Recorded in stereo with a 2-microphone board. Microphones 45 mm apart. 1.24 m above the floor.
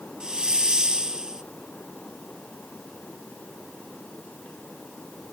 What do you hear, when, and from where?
0.2 s a hiss: 15° right (ahead or behind)